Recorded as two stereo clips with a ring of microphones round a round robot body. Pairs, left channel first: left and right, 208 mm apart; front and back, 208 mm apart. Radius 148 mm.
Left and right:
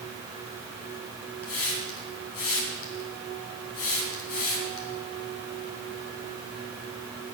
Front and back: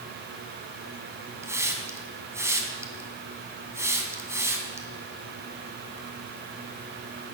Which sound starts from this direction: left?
A hiss, at 1.4 s.